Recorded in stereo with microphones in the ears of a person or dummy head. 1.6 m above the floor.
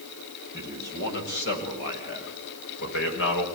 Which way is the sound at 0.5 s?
45° left (ahead or behind).